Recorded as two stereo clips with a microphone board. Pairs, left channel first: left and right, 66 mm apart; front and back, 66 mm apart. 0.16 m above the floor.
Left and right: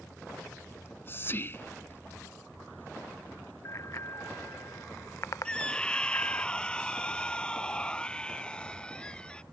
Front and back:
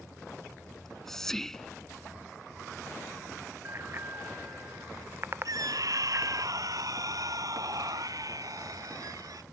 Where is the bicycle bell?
130° left.